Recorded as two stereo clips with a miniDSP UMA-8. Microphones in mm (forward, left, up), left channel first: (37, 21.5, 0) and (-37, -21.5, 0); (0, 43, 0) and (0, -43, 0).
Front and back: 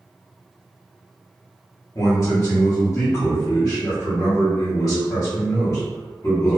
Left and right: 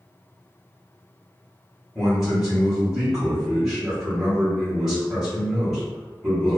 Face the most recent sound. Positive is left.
turn(degrees=-5)